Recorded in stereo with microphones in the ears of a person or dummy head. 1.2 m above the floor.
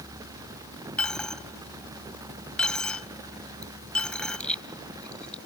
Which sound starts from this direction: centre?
A dropped coin, at 1.0 s.